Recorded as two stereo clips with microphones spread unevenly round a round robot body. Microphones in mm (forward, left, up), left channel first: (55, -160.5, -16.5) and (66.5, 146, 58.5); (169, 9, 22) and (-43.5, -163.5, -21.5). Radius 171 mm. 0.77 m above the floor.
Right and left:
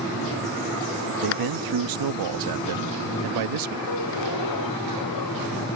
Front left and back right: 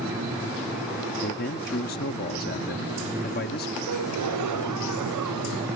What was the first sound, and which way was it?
A man speaking, 100° left.